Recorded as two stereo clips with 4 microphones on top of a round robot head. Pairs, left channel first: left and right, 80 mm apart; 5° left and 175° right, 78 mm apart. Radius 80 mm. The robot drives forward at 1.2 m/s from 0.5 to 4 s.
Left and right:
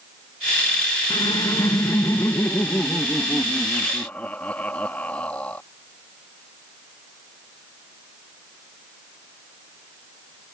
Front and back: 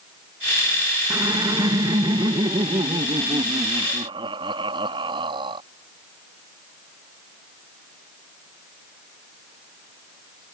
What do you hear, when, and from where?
1.1 s laughter: 130° left; by 5.6 s 165° left